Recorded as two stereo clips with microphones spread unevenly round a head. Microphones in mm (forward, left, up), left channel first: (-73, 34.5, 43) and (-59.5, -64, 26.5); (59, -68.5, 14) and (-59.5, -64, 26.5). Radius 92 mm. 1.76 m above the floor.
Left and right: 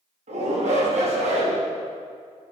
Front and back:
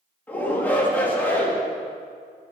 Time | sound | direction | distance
0.3 | a shout | 80° right | 4.5 m